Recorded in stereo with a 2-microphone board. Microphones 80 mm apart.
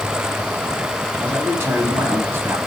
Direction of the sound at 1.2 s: 30° right (ahead or behind).